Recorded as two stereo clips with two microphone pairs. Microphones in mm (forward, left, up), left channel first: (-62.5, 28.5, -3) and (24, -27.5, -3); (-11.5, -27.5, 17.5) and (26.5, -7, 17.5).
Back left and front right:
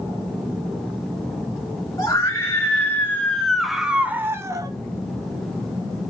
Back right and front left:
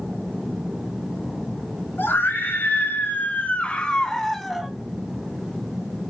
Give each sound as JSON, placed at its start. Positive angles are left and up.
{"t": 2.0, "sound": "a scream", "azimuth_deg": -165, "distance_m": 3.0}